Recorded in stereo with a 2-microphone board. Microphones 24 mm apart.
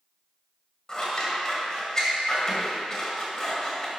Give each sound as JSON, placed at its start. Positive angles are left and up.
{"t": 0.9, "sound": "scissors", "side_deg": 25, "distance_m": 1.9}